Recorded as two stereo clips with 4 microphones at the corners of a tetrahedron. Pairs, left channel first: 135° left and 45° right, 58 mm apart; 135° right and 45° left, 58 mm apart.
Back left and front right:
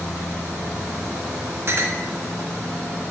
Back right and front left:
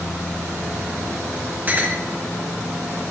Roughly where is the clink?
Ahead.